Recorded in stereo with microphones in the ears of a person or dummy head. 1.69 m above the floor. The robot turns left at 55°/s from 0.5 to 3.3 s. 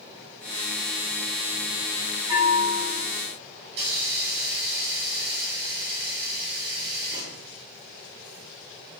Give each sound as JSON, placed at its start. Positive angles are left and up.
{"t": 2.3, "sound": "a bell", "azimuth_deg": -25, "distance_m": 3.0}
{"t": 3.7, "sound": "a hiss", "side_deg": -40, "distance_m": 2.0}